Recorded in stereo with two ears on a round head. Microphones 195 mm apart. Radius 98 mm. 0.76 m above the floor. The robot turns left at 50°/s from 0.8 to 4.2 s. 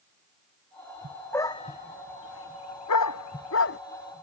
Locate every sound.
1.3 s a dog barking: 10° left (ahead or behind); by 3.8 s 45° left (ahead or behind)